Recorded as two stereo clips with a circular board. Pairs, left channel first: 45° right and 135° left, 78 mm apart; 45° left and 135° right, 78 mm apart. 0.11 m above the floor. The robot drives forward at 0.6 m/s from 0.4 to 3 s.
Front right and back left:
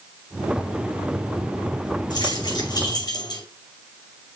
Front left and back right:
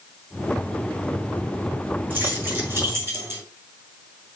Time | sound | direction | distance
2.1 | keys jangling | 70° right | 4.5 m